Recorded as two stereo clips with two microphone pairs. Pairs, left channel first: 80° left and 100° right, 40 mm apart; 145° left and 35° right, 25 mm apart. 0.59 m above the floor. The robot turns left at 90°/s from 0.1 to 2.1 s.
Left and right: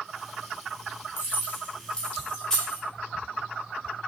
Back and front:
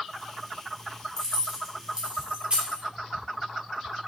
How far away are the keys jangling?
About 1.1 m.